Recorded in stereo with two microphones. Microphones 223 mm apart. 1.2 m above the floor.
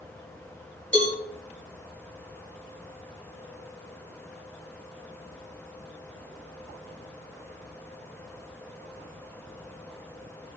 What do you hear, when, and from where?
0.9 s a cowbell: 60° right (ahead or behind), 5 m